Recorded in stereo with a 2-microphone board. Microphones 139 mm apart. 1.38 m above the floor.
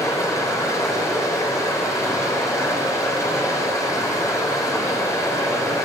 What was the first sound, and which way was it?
Running water, 20° left (ahead or behind).